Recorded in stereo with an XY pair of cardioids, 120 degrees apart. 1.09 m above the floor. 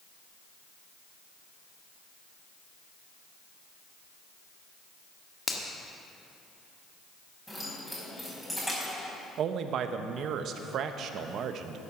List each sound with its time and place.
5.5 s a finger snap: 20° left, 1.7 m
7.5 s keys jangling: straight ahead, 5 m
9.4 s a man speaking: 60° right, 0.9 m